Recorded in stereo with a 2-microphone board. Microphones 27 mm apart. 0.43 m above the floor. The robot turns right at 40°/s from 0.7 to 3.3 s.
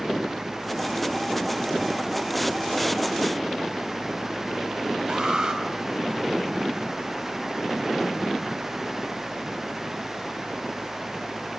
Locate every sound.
5.1 s an alarm: 35° right (ahead or behind), 3.5 m